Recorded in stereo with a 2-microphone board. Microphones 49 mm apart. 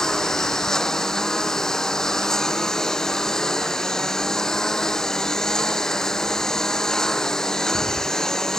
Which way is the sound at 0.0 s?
10° left (ahead or behind).